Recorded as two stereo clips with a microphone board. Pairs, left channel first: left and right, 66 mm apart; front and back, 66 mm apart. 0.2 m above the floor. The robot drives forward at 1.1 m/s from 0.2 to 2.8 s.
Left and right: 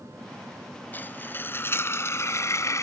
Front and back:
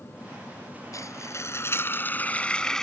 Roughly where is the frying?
Ahead left.